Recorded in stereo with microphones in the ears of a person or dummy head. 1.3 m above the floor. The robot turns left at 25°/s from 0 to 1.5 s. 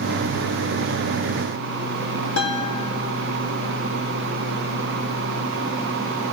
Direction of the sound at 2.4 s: 65° left (ahead or behind).